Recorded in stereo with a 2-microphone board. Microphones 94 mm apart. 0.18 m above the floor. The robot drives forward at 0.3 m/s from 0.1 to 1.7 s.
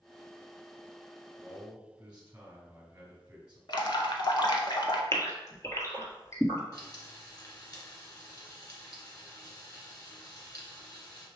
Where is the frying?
45° left (ahead or behind), 1.3 m.